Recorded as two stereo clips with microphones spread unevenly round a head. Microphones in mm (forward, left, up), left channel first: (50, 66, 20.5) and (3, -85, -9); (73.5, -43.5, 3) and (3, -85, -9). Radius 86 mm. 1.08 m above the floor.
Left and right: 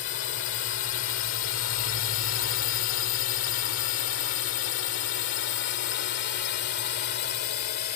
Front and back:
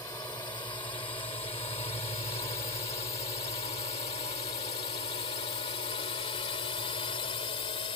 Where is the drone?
100° left; by 8.0 s 45° left.